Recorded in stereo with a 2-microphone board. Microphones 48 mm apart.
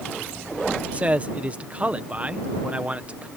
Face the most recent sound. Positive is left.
turn(degrees=-30)  # may be behind; listen again after turning